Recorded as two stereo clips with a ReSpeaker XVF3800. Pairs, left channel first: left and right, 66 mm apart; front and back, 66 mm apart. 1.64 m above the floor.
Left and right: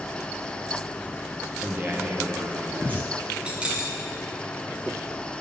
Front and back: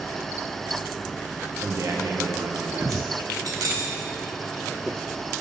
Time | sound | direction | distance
1.6 | a man speaking | 145° right | 0.9 m
3.5 | keys jangling | 160° right | 1.3 m